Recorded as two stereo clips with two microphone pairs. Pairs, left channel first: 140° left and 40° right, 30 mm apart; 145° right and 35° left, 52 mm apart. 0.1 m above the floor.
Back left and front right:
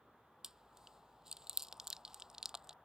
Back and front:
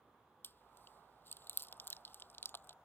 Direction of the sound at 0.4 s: 110° right.